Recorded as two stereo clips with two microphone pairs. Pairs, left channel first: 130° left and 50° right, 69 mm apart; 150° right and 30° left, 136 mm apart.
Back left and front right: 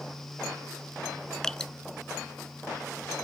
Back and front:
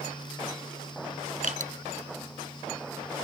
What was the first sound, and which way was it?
Dripping, 50° left.